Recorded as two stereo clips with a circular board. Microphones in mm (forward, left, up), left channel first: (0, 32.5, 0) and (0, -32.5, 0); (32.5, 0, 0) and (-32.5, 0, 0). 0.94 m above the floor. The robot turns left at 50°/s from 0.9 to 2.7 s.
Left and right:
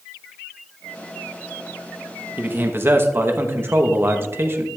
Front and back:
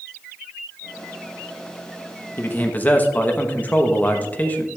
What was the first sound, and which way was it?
A man speaking, 40° right.